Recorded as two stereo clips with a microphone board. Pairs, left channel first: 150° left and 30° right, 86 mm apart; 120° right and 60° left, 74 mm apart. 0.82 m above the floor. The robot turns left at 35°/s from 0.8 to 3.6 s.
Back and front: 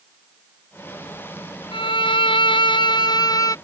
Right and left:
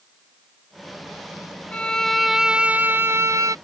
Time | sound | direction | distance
1.7 | a violin | 165° left | ?